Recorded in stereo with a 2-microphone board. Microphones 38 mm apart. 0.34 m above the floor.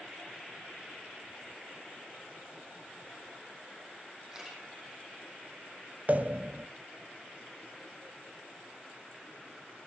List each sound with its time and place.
4.3 s a camera shutter: 10° right (ahead or behind), 5 m
6.1 s a pop: 40° right (ahead or behind), 0.6 m